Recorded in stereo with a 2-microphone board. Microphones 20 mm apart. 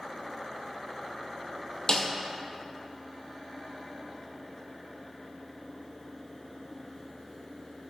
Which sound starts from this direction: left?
A snare drum, at 1.9 s.